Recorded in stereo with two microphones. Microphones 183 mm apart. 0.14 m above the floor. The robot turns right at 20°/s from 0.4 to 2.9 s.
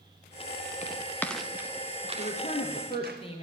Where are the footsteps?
40° left (ahead or behind), 0.9 m; by 3.2 s 60° right (ahead or behind), 2.5 m.